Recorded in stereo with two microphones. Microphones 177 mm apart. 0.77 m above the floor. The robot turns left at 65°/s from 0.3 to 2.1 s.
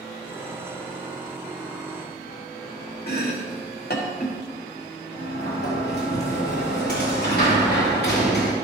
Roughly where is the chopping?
Left.